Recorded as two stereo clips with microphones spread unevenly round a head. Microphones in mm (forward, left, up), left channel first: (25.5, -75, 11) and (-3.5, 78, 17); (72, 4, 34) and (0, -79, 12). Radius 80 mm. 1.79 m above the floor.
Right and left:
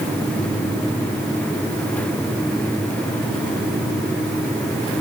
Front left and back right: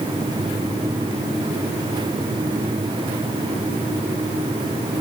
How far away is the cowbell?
No cowbell in this recording.